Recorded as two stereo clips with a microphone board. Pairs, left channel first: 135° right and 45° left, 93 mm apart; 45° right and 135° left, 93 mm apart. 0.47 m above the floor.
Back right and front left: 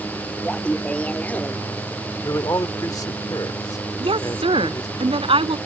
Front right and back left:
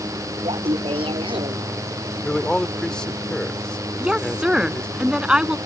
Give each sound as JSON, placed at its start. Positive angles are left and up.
{"t": 0.4, "sound": "laughter", "azimuth_deg": 150}
{"t": 2.2, "sound": "a man speaking", "azimuth_deg": -125}
{"t": 4.0, "sound": "a woman speaking", "azimuth_deg": 55}